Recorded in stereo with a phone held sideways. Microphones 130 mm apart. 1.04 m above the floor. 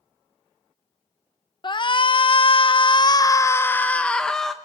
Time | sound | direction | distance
1.6 | a shout | 35° left (ahead or behind) | 0.8 m